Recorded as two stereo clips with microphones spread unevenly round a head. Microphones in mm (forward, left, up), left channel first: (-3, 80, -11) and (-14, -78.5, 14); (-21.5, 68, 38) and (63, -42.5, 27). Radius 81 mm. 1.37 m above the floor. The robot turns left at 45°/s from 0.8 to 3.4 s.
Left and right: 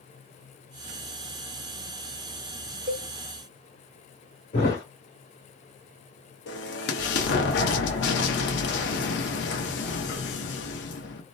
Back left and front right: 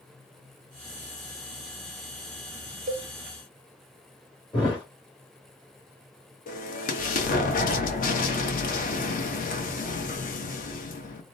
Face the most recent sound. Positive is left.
turn(degrees=100)